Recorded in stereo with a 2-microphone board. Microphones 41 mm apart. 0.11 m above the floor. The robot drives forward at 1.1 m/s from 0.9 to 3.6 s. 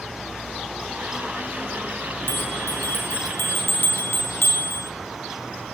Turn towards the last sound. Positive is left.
turn(degrees=70)  # may be behind; listen again after turning